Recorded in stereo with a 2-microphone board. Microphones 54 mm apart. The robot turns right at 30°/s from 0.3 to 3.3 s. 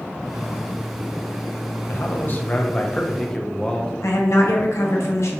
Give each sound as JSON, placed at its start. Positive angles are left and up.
{"t": 1.9, "sound": "a man speaking", "azimuth_deg": 125, "distance_m": 0.5}
{"t": 4.0, "sound": "a woman speaking", "side_deg": 65, "distance_m": 0.6}